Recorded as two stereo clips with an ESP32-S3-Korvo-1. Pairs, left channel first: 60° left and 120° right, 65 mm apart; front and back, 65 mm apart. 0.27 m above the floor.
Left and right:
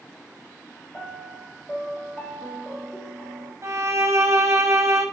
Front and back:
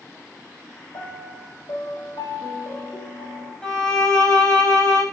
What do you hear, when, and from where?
0.9 s a piano: 10° right, 4.5 m
3.6 s a violin: 75° right, 5.5 m